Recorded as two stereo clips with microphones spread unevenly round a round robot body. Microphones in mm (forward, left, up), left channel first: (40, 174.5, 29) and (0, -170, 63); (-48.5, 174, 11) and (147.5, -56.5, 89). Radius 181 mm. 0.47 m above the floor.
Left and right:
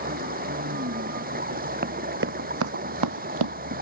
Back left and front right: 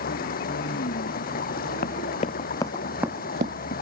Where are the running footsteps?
160° right; by 3.5 s 100° right.